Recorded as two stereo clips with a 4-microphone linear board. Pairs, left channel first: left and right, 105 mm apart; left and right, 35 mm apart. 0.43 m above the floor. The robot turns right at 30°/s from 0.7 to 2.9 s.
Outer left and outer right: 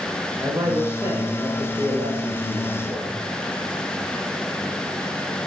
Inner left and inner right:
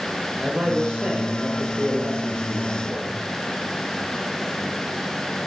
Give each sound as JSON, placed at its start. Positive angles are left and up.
{"t": 0.4, "sound": "a man speaking", "azimuth_deg": -140, "distance_m": 1.2}